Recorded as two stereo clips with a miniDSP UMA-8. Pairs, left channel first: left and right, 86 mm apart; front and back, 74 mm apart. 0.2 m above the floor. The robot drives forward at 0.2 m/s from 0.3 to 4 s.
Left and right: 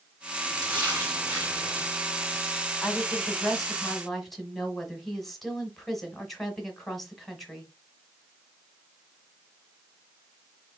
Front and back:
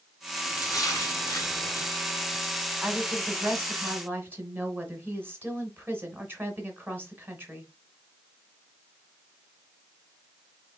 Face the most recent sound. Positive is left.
turn(degrees=175)